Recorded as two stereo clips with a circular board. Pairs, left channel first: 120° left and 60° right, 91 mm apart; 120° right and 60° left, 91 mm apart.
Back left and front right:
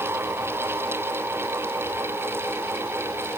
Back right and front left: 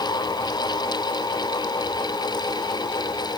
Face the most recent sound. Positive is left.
No sound to turn to.